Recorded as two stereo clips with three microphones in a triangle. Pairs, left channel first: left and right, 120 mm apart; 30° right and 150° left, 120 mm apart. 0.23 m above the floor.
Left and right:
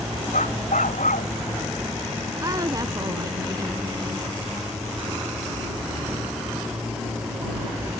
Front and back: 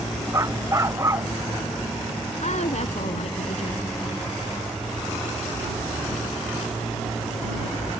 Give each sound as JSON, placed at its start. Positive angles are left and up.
{"t": 0.3, "sound": "a dog barking", "azimuth_deg": 85}
{"t": 2.4, "sound": "a woman speaking", "azimuth_deg": -35}